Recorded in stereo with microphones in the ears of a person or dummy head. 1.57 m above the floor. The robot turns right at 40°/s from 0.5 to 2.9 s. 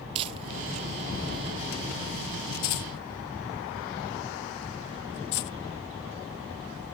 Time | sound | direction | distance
0.1 | crumpling | 30° right (ahead or behind) | 0.9 m